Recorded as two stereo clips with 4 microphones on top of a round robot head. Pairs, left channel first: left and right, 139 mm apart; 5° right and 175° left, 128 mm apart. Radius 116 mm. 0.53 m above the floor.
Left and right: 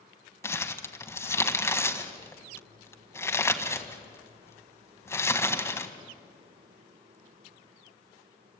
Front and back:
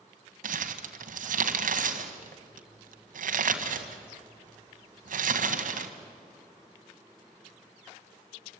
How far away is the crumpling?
About 1.6 m.